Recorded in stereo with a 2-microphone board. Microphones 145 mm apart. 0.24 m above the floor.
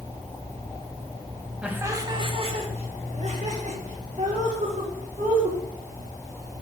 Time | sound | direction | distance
1.6 | laughter | 5° right (ahead or behind) | 1.0 m